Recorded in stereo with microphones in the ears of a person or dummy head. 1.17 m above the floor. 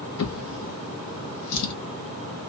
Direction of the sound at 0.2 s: 75° left (ahead or behind).